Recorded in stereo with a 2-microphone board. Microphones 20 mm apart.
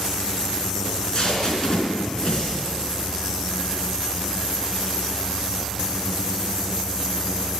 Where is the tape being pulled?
40° left (ahead or behind), 3.5 m.